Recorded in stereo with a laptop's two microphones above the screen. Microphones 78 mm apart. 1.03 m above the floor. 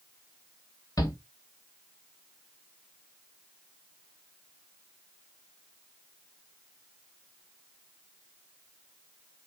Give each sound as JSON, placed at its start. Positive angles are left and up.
{"t": 1.0, "sound": "a shout", "side_deg": 50, "distance_m": 2.5}